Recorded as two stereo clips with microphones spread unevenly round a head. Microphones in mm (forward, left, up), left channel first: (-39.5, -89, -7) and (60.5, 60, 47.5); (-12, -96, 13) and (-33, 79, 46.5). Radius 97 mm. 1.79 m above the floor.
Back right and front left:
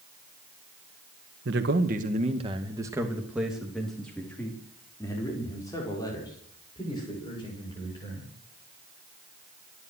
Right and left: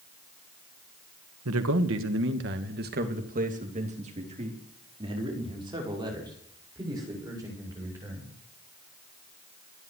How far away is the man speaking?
About 2.0 m.